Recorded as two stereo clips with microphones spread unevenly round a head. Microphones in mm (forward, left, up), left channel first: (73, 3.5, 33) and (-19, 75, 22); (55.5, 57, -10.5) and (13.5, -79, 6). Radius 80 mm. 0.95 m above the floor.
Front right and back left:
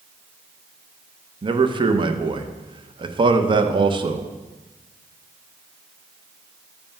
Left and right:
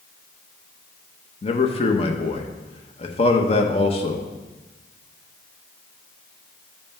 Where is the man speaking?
115° left, 0.8 m.